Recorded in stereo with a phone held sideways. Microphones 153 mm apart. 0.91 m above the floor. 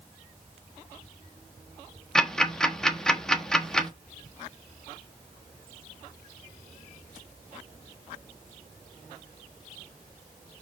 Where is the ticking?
5° left (ahead or behind), 1.1 m.